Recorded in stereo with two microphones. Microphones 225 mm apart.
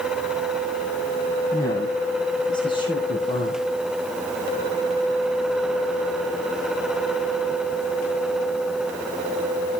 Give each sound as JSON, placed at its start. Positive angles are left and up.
{"t": 1.5, "sound": "a woman speaking", "side_deg": 15, "distance_m": 3.0}